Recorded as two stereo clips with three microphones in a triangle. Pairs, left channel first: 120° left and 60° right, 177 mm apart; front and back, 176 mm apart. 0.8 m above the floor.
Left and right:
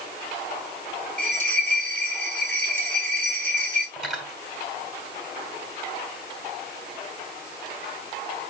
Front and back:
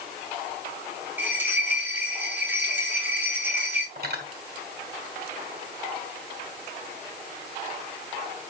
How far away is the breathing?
No breathing in this recording.